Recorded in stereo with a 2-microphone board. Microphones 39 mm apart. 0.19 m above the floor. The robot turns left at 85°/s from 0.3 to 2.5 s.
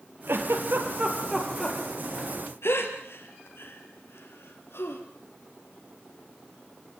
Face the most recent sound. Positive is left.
turn(degrees=70)  # may be behind; listen again after turning